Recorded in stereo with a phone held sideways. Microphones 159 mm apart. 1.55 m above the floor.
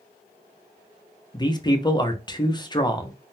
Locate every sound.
1.3 s a man speaking: 25° left (ahead or behind), 0.6 m